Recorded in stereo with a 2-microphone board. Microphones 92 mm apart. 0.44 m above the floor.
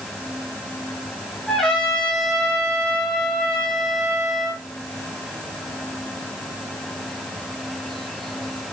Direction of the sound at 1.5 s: 5° left (ahead or behind).